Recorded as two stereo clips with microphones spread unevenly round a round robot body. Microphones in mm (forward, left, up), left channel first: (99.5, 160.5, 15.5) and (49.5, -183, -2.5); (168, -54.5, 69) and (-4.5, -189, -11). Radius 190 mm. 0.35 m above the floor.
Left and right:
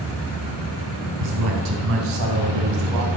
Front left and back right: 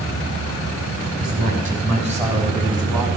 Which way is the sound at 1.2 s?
105° right.